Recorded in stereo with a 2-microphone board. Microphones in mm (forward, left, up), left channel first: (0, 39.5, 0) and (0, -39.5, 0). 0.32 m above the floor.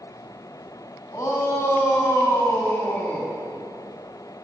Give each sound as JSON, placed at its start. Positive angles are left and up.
{"t": 1.1, "sound": "a shout", "side_deg": 45, "distance_m": 2.5}